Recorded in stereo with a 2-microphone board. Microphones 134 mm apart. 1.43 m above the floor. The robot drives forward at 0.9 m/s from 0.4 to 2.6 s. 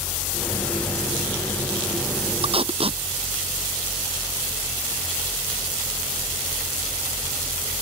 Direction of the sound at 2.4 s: 40° right (ahead or behind).